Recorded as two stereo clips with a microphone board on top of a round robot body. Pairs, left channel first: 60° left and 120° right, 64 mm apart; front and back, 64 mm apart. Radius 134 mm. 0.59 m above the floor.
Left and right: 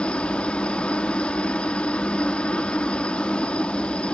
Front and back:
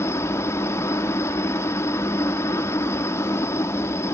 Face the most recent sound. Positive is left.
turn(degrees=-5)